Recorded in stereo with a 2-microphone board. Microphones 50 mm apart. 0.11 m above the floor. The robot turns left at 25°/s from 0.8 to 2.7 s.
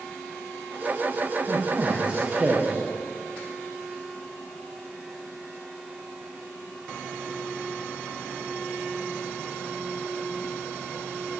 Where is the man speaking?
135° right, 7.5 m; by 2.9 s 165° right, 7.5 m.